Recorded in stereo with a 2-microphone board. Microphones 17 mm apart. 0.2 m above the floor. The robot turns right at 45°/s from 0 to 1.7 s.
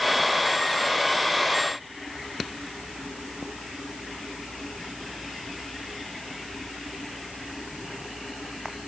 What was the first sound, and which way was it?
Only background noise.